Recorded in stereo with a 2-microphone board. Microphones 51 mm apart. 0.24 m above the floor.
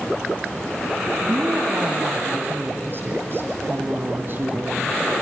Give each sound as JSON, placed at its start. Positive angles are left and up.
{"t": 1.2, "sound": "a woman speaking", "side_deg": -45, "distance_m": 2.5}